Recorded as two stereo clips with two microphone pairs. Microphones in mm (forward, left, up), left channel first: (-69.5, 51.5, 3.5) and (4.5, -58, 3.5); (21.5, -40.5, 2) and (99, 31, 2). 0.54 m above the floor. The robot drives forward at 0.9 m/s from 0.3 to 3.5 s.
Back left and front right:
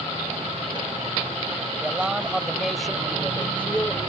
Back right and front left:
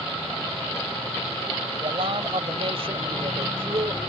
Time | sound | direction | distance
1.8 | a man speaking | 25° left | ?